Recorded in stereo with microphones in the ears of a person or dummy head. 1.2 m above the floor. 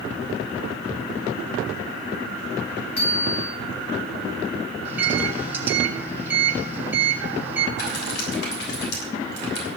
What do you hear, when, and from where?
3.0 s a bicycle bell: 35° left (ahead or behind), 9 m
4.8 s a microwave: 15° right (ahead or behind), 4.5 m
7.8 s typing on a keyboard: 65° left (ahead or behind), 6.5 m